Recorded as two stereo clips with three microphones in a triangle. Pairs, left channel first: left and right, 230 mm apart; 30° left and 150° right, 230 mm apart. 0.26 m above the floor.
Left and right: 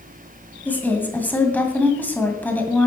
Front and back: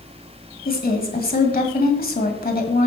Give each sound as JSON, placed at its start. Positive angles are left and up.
{"t": 0.7, "sound": "a woman speaking", "azimuth_deg": 10, "distance_m": 1.8}